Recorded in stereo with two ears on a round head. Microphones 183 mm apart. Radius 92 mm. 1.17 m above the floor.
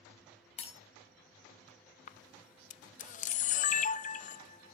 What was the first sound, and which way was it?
Breaking glass, 35° left (ahead or behind).